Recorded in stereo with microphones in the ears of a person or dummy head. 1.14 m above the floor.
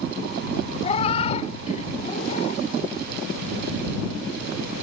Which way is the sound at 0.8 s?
35° left (ahead or behind).